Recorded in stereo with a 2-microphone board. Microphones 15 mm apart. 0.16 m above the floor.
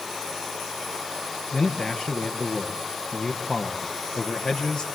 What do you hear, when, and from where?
1.5 s a man speaking: 60° left (ahead or behind), 3 m